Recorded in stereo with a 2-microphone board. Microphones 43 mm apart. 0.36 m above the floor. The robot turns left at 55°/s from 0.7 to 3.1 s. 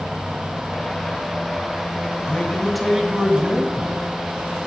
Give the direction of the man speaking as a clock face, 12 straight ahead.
11 o'clock.